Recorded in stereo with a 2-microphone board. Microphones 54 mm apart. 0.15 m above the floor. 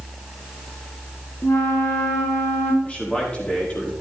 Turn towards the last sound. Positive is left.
turn(degrees=25)  # may be behind; listen again after turning